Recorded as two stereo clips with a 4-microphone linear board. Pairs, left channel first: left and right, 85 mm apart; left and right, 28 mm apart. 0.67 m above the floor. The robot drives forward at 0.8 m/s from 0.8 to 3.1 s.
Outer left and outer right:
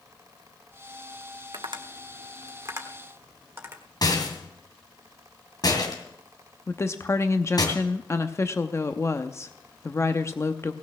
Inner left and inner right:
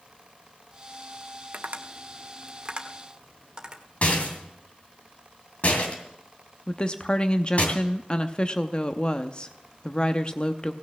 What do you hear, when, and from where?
1.5 s tapping: 60° right (ahead or behind), 0.9 m; by 3.8 s 30° right (ahead or behind), 1.5 m
4.0 s a rattle: 50° left (ahead or behind), 2.5 m
6.7 s a woman speaking: 35° left (ahead or behind), 0.6 m